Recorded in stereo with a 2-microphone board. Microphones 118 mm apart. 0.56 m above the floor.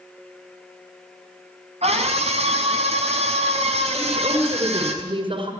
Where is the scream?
60° right (ahead or behind), 5.5 m.